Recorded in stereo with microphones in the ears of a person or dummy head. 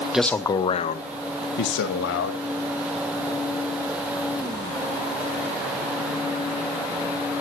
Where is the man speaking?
5° right (ahead or behind), 0.9 m; by 2.4 s 70° left (ahead or behind), 2 m.